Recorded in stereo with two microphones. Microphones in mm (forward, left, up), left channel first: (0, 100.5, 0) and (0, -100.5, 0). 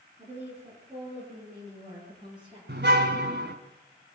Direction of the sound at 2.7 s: 65° right (ahead or behind).